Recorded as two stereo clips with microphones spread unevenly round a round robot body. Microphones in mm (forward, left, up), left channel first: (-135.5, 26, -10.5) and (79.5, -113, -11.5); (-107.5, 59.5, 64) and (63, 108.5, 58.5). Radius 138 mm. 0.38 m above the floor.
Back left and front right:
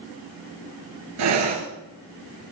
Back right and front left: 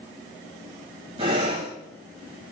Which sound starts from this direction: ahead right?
Breathing, at 1.2 s.